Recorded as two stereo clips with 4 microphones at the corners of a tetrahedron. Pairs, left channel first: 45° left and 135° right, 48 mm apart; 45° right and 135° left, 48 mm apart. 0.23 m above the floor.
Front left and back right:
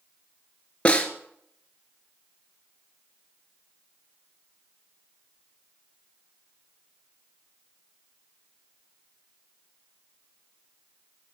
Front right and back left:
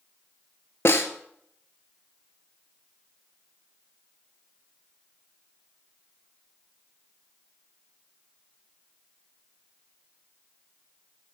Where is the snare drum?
20° right, 1.2 m.